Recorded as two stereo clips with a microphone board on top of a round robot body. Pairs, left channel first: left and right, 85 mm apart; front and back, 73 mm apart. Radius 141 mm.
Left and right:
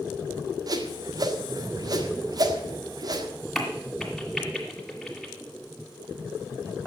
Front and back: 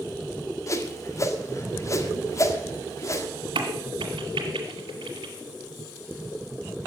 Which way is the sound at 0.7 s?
50° right.